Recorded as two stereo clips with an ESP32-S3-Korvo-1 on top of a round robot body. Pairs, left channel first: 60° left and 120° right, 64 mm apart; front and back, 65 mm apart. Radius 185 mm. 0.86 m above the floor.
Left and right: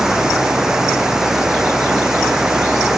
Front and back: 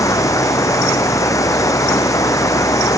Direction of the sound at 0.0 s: 35° right.